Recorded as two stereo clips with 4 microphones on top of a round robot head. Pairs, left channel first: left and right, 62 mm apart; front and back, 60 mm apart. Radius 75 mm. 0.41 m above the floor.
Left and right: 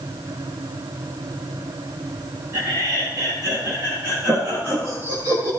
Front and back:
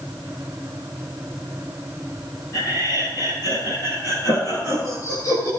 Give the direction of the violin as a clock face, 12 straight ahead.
No violin in this recording.